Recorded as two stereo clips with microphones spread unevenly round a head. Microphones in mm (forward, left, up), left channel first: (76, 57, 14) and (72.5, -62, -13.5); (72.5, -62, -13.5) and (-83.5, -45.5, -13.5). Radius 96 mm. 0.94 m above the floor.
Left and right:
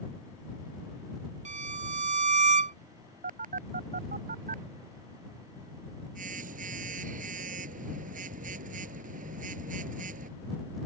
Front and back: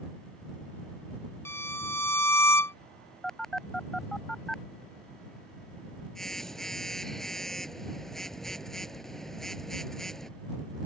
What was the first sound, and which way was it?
A violin, 80° right.